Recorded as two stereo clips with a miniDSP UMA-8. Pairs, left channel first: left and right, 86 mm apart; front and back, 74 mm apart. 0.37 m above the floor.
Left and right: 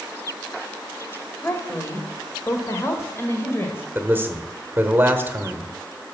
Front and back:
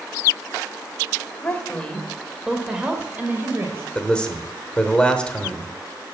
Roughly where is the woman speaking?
Ahead left.